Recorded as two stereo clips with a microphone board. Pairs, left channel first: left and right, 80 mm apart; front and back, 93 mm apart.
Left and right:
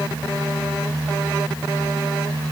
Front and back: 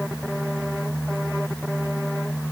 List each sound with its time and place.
Only background noise.